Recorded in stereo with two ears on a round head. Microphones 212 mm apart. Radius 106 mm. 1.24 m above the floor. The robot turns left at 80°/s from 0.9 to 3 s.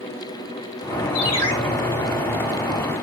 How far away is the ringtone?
About 4 m.